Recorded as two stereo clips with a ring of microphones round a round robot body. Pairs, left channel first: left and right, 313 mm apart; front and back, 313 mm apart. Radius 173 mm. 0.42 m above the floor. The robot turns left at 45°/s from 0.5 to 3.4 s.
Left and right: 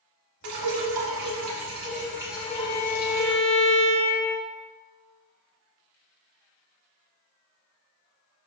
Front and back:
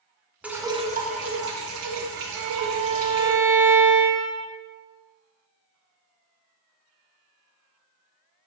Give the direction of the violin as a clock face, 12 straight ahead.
7 o'clock.